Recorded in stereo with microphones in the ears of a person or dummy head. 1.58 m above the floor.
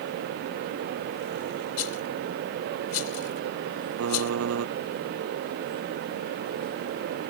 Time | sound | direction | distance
1.8 | a rattle | 80° left | ?
4.0 | typing on a keyboard | 85° right | ?